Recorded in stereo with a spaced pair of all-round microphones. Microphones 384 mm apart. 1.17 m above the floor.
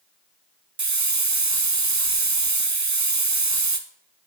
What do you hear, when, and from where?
0.8 s a hiss: 45° right (ahead or behind), 0.6 m